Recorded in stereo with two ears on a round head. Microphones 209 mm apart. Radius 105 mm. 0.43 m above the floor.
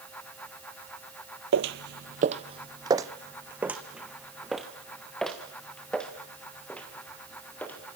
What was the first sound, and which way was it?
Footsteps, 60° right (ahead or behind).